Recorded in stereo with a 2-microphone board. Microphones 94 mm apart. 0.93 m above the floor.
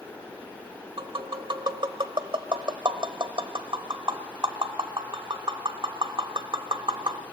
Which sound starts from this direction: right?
Tapping, at 1.0 s.